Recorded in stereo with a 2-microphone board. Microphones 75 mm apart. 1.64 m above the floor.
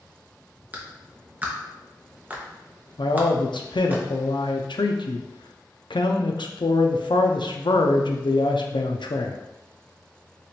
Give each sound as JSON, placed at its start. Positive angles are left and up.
{"t": 0.7, "sound": "a clap", "side_deg": -20, "distance_m": 0.8}
{"t": 3.0, "sound": "a man speaking", "side_deg": 85, "distance_m": 0.5}